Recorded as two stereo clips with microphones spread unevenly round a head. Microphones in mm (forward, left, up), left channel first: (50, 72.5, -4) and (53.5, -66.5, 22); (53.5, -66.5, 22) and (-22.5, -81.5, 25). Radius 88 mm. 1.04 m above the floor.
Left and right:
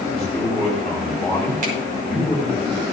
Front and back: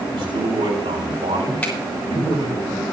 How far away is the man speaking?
About 6 m.